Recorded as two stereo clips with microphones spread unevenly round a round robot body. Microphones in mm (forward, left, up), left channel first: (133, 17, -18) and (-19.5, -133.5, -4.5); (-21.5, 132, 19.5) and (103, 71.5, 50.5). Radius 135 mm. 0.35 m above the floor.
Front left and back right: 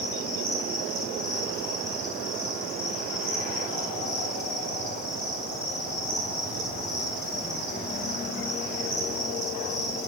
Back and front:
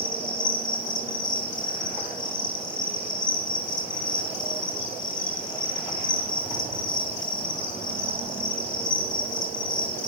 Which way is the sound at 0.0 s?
150° left.